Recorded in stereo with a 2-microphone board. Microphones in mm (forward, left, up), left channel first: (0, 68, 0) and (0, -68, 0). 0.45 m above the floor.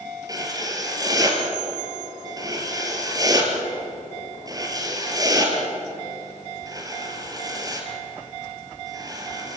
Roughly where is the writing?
Right.